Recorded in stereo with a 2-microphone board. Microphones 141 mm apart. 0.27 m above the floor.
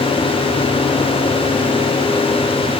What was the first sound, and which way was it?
Only background noise.